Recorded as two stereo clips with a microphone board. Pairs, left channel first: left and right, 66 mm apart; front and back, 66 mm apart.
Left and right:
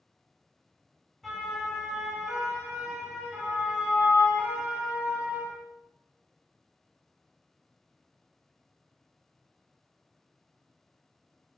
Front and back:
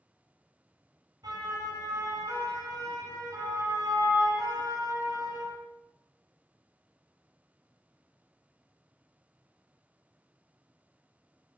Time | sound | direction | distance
1.2 | a siren | straight behind | 8.5 m